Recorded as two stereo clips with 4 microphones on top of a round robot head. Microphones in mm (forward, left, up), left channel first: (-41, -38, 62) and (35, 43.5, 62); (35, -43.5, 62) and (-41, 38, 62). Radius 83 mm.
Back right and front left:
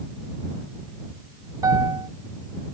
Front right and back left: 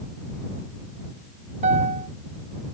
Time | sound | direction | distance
1.6 | a piano | 110° left | ?